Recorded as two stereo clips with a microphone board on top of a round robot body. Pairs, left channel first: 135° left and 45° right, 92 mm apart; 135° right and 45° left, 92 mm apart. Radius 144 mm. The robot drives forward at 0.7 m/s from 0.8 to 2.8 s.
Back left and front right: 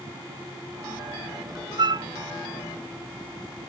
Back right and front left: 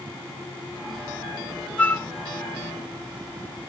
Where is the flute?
60° right; by 2.1 s 80° right.